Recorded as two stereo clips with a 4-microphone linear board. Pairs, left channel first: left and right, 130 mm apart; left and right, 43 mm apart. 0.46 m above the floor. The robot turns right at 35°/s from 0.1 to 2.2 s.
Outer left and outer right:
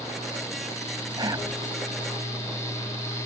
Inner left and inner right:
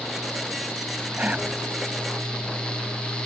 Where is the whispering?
35° right (ahead or behind); by 1.5 s 25° right (ahead or behind).